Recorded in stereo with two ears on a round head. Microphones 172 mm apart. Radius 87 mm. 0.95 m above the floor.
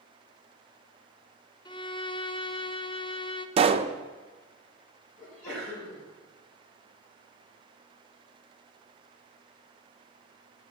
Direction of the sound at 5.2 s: 40° left (ahead or behind).